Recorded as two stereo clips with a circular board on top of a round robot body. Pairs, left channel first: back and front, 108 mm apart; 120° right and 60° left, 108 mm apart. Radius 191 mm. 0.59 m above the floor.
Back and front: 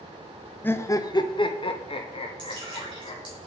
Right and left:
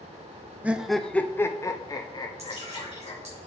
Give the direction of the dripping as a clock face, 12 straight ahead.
10 o'clock.